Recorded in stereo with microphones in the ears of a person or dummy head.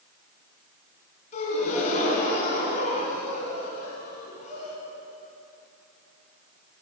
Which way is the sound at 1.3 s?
40° left (ahead or behind).